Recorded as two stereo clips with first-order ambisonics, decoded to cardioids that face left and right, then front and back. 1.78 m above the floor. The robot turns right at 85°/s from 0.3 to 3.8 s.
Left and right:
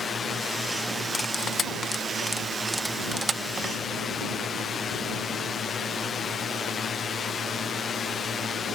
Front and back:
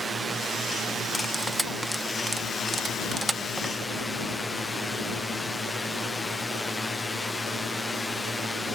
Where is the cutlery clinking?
55° left; by 3.7 s 85° right.